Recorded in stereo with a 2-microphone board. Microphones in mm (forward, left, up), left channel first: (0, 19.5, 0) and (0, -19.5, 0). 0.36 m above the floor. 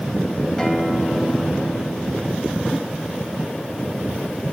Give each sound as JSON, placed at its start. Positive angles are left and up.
{"t": 0.6, "sound": "a guitar", "side_deg": 15, "distance_m": 2.5}